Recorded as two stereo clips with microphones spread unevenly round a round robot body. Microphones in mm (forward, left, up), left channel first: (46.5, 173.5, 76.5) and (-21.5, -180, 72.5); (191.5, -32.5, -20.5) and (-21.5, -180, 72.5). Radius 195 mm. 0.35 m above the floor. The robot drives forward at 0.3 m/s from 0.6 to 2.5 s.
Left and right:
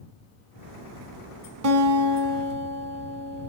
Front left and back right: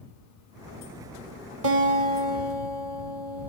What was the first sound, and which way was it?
A guitar, 150° right.